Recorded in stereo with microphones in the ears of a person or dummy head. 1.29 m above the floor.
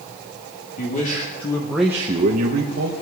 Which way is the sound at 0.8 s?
50° left (ahead or behind).